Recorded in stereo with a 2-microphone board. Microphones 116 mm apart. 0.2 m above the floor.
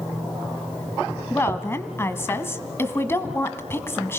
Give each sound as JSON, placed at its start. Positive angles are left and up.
{"t": 1.3, "sound": "a woman speaking", "side_deg": 20, "distance_m": 1.4}